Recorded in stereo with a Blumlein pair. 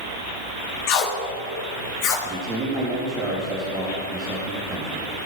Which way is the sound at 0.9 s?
45° left.